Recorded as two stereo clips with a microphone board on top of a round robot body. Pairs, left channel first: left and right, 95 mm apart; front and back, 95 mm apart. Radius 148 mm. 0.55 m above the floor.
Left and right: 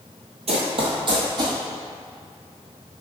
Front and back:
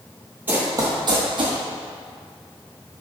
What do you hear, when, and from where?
0.5 s running footsteps: 105° right, 1.1 m; by 1.6 s 145° right, 1.8 m